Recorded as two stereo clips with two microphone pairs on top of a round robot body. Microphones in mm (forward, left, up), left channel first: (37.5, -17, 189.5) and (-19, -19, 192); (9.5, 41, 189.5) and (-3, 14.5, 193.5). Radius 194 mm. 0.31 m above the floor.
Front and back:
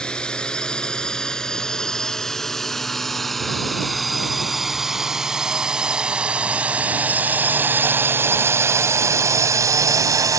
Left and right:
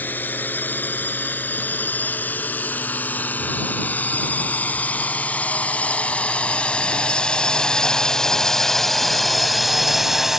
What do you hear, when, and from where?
0.0 s a drone: 75° left; by 10.4 s 165° left